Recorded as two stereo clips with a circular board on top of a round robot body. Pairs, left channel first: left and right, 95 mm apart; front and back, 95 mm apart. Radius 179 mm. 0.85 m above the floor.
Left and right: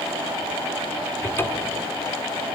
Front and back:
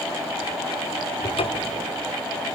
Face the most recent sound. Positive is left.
turn(degrees=25)